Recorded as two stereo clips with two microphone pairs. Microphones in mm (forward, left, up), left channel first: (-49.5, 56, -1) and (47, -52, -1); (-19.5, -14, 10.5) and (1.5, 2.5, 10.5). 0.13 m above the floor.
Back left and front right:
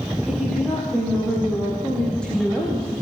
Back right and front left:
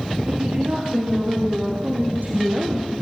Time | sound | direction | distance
0.3 | a woman speaking | 45° left | 7.5 m